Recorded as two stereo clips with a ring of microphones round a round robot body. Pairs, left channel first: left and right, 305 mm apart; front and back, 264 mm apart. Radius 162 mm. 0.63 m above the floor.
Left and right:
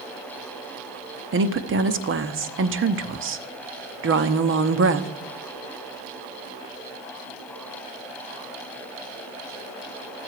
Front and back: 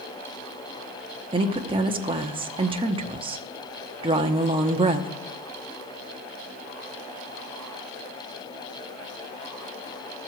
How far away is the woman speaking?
About 1.0 m.